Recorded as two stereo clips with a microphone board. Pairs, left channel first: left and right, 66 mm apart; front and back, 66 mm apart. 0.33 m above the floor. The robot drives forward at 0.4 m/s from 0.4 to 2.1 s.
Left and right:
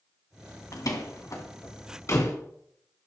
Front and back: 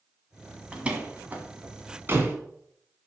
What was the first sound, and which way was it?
A door slam, 110° left.